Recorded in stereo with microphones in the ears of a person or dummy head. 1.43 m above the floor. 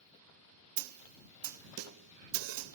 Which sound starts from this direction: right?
A snare drum, at 0.8 s.